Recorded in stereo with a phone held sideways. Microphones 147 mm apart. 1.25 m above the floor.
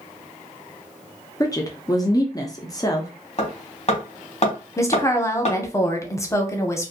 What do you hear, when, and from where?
1.4 s a woman speaking: 25° left (ahead or behind), 0.5 m
3.4 s hammering: 50° left (ahead or behind), 1.1 m
4.8 s a woman speaking: 20° left (ahead or behind), 0.6 m